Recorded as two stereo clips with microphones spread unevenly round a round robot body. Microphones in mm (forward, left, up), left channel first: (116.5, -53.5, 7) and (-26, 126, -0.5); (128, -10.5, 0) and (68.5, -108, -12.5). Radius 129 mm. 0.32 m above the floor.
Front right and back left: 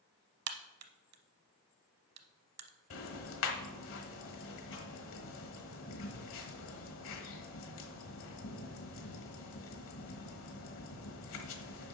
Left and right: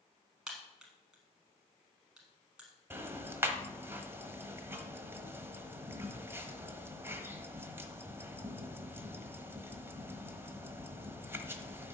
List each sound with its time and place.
0.5 s a crack: 150° left, 0.8 m
2.9 s ticking: 60° right, 1.3 m